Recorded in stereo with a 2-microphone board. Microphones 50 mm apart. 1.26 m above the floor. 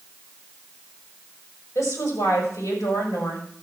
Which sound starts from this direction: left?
A woman speaking, at 1.8 s.